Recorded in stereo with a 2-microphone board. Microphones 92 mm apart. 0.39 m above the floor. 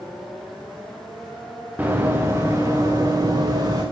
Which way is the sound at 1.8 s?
20° right (ahead or behind).